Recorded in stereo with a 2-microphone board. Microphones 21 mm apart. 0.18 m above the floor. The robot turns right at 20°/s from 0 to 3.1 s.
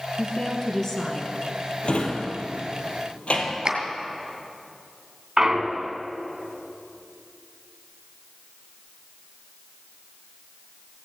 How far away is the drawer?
About 2 m.